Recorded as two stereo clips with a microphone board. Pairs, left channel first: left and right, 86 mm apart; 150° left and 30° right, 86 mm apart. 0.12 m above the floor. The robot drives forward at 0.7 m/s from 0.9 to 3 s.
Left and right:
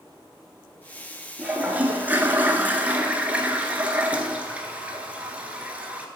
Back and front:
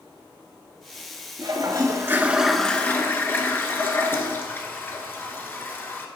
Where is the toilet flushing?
15° right, 0.9 m; by 6.1 s 155° right, 0.7 m.